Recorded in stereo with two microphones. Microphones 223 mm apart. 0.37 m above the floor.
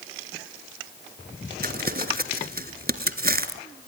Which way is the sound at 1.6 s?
45° right (ahead or behind).